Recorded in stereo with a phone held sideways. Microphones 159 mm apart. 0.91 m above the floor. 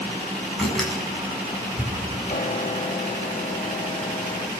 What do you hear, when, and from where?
0.6 s a door slam: 5° left (ahead or behind), 7 m
2.3 s a piano: 50° left (ahead or behind), 0.9 m